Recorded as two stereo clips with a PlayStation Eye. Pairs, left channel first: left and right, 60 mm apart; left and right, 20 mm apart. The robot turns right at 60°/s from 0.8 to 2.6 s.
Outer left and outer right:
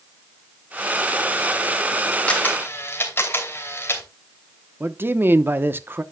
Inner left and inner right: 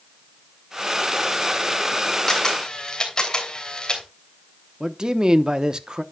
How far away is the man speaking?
About 0.8 m.